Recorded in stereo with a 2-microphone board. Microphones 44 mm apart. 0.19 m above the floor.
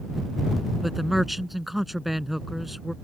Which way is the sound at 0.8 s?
Centre (ahead or behind).